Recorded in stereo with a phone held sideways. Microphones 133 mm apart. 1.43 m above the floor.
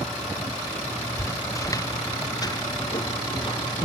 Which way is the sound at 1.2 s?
25° left (ahead or behind).